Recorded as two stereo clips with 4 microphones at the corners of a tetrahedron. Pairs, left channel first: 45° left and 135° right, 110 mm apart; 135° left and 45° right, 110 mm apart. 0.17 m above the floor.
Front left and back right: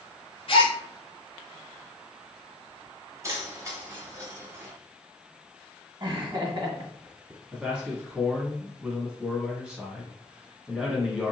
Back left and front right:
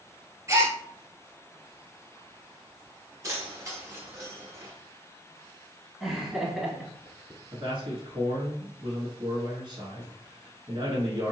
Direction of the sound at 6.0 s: 130° right.